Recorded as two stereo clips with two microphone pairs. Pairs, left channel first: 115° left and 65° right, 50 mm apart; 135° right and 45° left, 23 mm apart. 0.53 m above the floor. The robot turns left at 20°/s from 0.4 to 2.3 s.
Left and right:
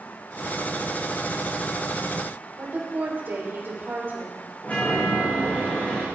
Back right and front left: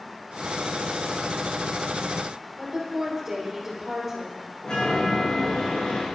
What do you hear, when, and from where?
2.6 s a woman speaking: 35° right, 3 m
4.6 s a chime: 170° left, 6.5 m